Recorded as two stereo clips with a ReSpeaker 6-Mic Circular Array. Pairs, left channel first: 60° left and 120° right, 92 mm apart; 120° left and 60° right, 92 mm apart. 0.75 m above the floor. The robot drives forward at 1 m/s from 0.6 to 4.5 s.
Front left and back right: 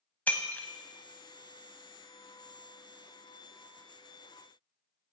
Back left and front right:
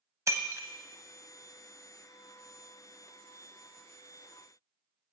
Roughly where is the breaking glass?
Ahead.